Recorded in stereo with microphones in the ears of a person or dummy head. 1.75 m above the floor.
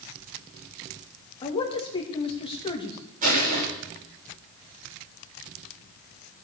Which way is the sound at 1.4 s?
30° left (ahead or behind).